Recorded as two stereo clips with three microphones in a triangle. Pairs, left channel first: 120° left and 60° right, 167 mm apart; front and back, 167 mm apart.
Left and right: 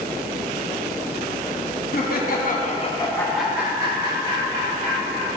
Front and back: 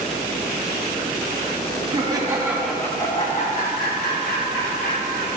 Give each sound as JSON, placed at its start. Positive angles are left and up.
{"t": 1.9, "sound": "laughter", "azimuth_deg": 120, "distance_m": 1.2}